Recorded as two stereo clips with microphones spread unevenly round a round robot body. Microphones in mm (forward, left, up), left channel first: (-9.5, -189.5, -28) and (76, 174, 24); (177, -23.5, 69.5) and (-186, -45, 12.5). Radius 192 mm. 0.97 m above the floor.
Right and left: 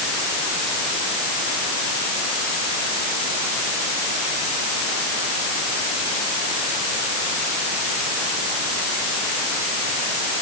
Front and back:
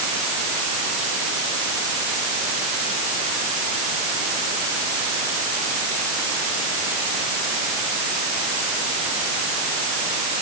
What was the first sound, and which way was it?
Only background noise.